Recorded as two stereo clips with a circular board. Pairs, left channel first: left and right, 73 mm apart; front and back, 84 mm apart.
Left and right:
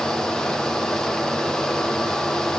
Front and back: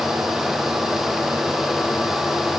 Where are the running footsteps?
I don't hear running footsteps.